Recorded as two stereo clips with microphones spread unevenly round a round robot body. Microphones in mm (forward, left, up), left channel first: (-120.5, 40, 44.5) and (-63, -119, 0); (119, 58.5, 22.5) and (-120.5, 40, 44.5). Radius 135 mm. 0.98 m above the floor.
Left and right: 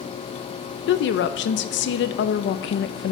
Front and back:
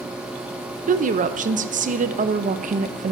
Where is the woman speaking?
125° left, 0.5 m.